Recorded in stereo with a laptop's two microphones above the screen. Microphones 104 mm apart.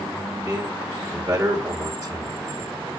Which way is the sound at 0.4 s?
30° right (ahead or behind).